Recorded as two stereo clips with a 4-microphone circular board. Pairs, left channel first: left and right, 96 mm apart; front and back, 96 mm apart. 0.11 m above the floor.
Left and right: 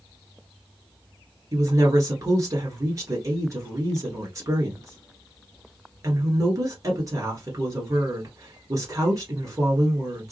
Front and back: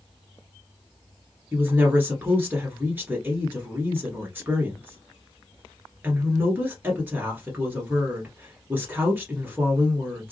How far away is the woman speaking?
About 1.5 m.